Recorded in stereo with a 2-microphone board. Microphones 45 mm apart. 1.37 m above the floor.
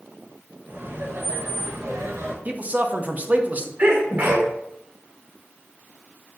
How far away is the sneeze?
About 0.9 m.